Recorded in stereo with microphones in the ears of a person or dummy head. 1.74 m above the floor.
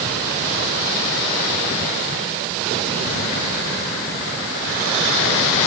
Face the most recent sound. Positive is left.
No sound to turn to.